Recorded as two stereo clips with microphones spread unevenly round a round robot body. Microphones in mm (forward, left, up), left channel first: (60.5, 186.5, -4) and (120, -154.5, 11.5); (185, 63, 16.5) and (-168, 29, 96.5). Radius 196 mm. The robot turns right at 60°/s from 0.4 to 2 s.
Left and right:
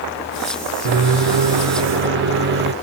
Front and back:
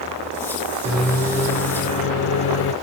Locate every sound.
0.8 s a microwave: 90° right, 0.6 m; by 2.7 s 20° right, 0.6 m